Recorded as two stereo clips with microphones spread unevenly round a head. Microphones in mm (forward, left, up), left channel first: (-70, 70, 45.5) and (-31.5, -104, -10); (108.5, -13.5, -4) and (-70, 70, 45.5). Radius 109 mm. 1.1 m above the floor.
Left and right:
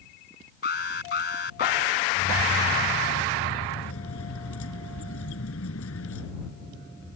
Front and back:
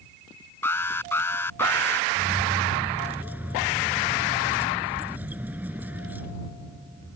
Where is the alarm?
55° left.